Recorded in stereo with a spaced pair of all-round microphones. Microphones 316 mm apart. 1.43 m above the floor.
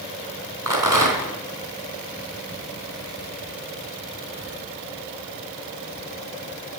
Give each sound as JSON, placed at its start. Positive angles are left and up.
{"t": 0.7, "sound": "a rattle", "side_deg": -75, "distance_m": 3.5}